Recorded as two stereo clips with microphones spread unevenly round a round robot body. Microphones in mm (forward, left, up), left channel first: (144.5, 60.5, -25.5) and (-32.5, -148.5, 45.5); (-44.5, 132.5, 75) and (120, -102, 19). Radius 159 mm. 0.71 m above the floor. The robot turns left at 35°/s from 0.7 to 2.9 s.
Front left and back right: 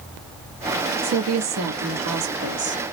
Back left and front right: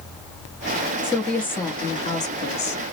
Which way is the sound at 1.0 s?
125° right.